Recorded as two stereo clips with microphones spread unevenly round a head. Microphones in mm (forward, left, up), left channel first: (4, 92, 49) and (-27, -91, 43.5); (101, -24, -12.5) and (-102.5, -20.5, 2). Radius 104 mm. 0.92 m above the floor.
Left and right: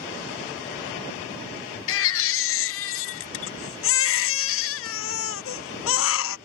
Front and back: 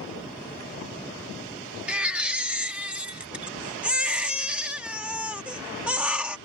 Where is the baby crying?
95° left.